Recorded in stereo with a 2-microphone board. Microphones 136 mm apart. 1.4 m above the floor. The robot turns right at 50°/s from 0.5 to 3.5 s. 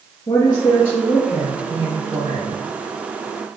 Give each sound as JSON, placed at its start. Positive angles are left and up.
{"t": 0.3, "sound": "a woman speaking", "azimuth_deg": 135, "distance_m": 0.9}